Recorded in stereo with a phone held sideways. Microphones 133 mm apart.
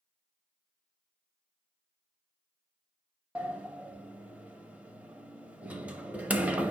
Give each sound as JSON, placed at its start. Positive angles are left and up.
{"t": 3.4, "sound": "a sliding door", "side_deg": -10, "distance_m": 0.6}